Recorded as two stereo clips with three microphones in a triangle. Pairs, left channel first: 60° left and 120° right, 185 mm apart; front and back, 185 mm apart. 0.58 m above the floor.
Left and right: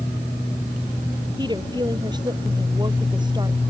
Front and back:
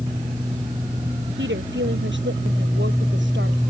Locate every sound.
1.4 s a woman speaking: 175° left